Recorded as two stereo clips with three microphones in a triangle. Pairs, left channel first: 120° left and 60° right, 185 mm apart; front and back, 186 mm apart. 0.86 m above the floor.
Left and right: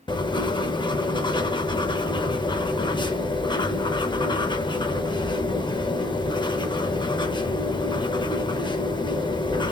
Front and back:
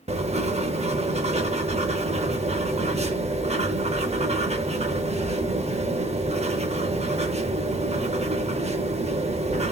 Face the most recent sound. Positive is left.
turn(degrees=165)